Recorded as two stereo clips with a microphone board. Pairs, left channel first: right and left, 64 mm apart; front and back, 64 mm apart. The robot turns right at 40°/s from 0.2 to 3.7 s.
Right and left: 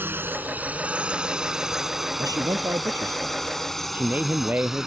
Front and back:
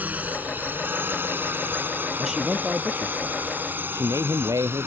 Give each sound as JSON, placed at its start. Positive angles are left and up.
{"t": 0.0, "sound": "a drone", "azimuth_deg": 130}
{"t": 2.2, "sound": "a man speaking", "azimuth_deg": 90}